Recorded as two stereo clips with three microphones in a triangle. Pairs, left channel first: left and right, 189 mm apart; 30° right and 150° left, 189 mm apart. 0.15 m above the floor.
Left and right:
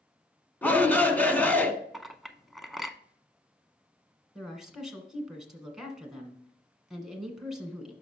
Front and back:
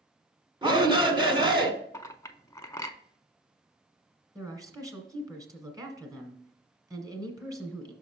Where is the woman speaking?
175° right, 1.5 m.